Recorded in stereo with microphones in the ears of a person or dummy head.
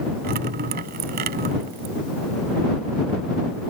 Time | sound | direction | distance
0.2 | dripping | 50° right (ahead or behind) | ?